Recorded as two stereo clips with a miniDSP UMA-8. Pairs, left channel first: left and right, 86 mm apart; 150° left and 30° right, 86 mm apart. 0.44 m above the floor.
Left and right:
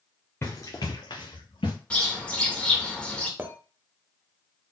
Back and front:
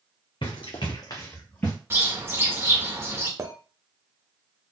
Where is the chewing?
I don't hear chewing.